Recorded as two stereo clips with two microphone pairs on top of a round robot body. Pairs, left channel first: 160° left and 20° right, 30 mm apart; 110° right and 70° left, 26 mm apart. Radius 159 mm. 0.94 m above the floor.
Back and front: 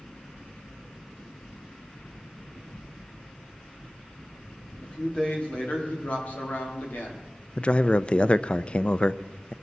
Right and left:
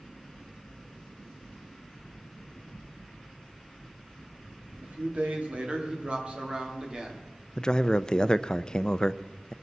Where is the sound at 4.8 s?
95° left, 2.0 m; by 7.2 s 130° left, 2.5 m.